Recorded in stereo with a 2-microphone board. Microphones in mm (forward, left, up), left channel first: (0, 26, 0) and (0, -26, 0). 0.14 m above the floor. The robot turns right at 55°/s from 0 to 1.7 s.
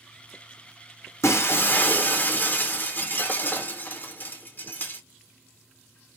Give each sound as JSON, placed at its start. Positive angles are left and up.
{"t": 1.2, "sound": "breaking glass", "side_deg": 65, "distance_m": 1.6}